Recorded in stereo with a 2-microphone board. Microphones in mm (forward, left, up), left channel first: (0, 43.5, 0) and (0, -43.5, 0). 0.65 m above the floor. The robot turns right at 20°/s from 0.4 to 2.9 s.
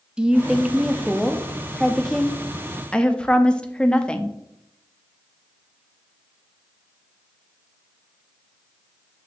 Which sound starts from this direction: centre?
A woman speaking, at 0.2 s.